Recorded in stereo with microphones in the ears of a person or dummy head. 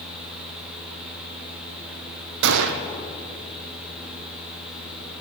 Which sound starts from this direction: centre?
A fan, at 0.0 s.